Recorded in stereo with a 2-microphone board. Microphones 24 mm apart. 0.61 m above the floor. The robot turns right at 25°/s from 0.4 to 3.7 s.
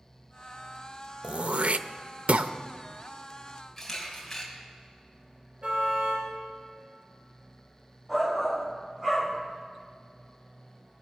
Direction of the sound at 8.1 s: 15° right (ahead or behind).